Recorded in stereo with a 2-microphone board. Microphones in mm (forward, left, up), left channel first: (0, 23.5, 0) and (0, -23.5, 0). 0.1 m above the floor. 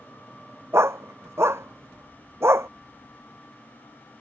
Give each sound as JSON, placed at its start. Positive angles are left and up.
{"t": 0.7, "sound": "a dog barking", "side_deg": -65}